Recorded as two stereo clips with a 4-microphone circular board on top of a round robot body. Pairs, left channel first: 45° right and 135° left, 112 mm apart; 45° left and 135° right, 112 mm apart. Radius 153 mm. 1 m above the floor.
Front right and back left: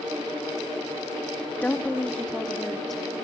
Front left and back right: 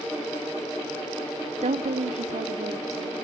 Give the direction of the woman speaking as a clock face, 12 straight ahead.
4 o'clock.